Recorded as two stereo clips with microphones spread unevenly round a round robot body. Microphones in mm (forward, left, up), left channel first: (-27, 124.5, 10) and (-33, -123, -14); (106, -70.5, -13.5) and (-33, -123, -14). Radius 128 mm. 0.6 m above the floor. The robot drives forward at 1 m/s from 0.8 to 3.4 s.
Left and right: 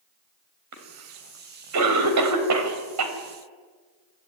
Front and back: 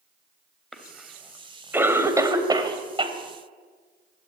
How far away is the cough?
About 3.5 m.